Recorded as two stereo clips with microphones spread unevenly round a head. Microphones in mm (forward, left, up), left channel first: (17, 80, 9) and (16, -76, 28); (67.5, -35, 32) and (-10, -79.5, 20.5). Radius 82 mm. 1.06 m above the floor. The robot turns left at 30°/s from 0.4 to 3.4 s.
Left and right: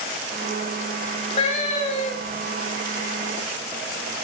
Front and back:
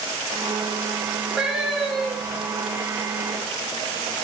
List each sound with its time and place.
1.3 s a cat meowing: 120° left, 0.7 m; by 2.5 s 85° left, 0.7 m